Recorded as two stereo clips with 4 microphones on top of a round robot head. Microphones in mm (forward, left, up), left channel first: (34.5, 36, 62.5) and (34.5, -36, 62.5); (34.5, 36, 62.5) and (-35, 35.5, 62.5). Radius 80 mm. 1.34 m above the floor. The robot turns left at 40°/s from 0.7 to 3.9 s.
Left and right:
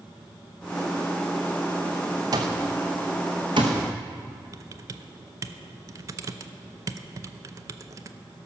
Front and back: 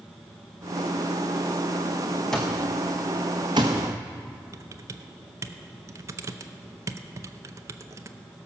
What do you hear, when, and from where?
2.3 s an alarm clock: 85° right, 0.6 m; by 3.8 s 140° right, 0.6 m
4.5 s typing on a keyboard: 135° right, 0.5 m